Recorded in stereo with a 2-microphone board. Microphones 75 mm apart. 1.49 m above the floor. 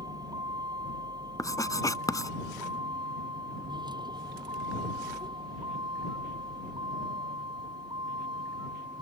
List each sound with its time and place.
0.0 s a vehicle: 60° right (ahead or behind); by 9.0 s 85° right
1.4 s writing: 50° left (ahead or behind)